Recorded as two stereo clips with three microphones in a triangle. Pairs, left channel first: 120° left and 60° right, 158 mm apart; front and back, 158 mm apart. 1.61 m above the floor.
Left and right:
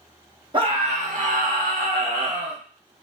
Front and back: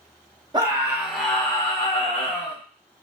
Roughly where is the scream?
Behind right.